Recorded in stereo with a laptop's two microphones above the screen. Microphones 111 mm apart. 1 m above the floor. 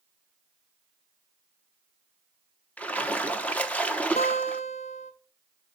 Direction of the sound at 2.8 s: 15° left (ahead or behind).